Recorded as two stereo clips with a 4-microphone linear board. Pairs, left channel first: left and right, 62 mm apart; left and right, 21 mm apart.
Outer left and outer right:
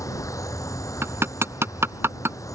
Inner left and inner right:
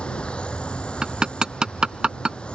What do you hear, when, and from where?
0.0 s an insect: 55° left (ahead or behind)
1.0 s hammering: 40° right (ahead or behind)